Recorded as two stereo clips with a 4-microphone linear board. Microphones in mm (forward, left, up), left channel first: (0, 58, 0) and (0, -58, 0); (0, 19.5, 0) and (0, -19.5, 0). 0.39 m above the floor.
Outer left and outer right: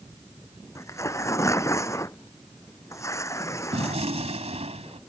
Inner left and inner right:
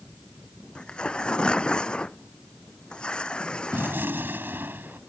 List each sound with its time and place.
0.8 s tearing paper: 25° left (ahead or behind)
3.7 s a gunshot: 65° right (ahead or behind)